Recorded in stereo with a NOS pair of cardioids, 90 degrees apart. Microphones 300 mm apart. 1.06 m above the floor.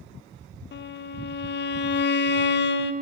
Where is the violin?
40° left, 0.6 m.